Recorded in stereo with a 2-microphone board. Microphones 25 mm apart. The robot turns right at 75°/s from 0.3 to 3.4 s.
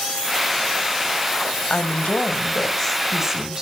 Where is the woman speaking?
85° left, 1.7 m; by 3.6 s 150° right, 1.7 m.